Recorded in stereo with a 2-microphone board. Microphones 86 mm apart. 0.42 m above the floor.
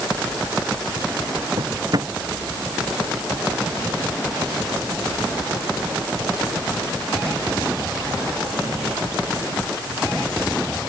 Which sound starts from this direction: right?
A drawer, at 1.6 s.